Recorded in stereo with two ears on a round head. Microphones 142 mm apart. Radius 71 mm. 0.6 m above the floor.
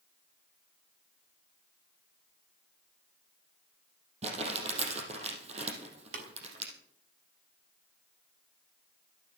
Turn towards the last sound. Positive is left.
turn(degrees=-60)  # may be behind; listen again after turning